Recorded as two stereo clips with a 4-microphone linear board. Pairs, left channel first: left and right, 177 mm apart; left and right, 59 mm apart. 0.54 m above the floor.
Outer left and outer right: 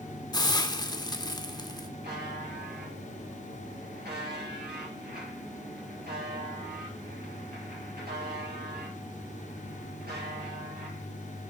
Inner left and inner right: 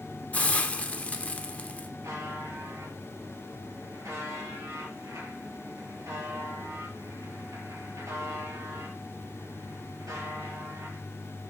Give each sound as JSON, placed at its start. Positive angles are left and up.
{"t": 0.3, "sound": "a hiss", "side_deg": 25, "distance_m": 0.7}
{"t": 2.0, "sound": "a buzzer", "side_deg": -65, "distance_m": 4.5}